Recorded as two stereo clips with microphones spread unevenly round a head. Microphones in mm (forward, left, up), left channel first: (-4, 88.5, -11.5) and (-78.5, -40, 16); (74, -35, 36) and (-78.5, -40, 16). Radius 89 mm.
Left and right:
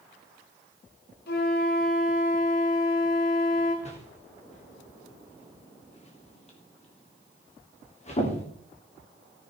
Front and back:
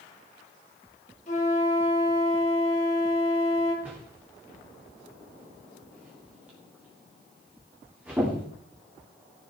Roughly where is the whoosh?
Left.